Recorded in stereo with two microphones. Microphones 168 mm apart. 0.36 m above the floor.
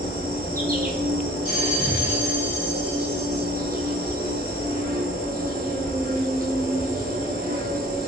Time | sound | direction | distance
0.0 | an insect | 60° right (ahead or behind) | 0.9 m
1.4 | a bell | 45° left (ahead or behind) | 1.9 m